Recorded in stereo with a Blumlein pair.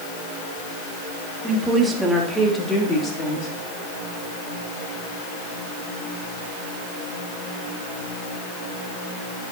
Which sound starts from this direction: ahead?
A woman speaking, at 1.4 s.